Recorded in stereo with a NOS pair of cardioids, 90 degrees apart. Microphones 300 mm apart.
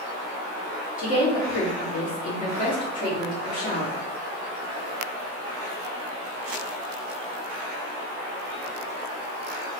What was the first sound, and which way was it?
A woman speaking, 25° left.